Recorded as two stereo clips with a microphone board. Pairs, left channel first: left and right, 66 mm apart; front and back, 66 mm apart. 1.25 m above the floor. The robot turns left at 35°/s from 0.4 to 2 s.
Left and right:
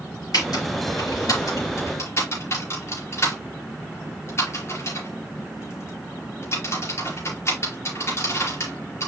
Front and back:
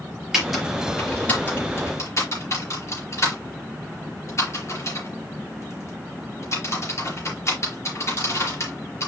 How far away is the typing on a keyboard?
About 4.5 m.